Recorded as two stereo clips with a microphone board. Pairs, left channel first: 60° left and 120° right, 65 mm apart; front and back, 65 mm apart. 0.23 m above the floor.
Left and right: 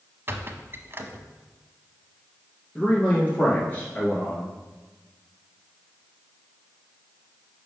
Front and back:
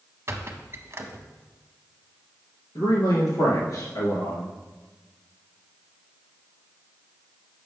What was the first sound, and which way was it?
A squeak, 155° right.